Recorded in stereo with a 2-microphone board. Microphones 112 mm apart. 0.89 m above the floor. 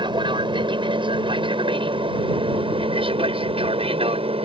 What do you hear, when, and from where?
0.0 s an aircraft: 45° right (ahead or behind); by 4.5 s 60° right (ahead or behind)